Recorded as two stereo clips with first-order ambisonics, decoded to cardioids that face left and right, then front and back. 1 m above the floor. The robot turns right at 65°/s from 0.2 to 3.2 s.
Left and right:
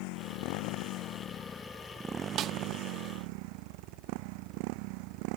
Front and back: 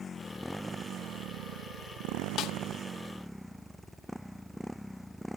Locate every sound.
0.0 s a motorcycle: 70° left; by 5.4 s 90° right
2.4 s a snare drum: 45° right; by 2.5 s 35° right